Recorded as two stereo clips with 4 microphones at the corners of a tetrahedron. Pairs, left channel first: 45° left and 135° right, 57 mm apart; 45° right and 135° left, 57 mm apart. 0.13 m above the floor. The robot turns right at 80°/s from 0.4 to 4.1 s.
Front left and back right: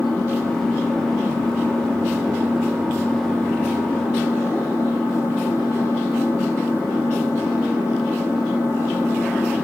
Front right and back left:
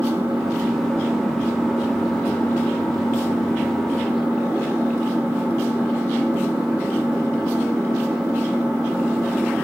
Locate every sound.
0.0 s an engine running: 105° left, 5.5 m; by 9.7 s 40° left, 5.5 m